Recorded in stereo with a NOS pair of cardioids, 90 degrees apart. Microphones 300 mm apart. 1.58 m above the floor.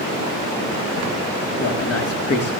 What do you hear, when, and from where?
1.6 s a man speaking: 50° left, 3.5 m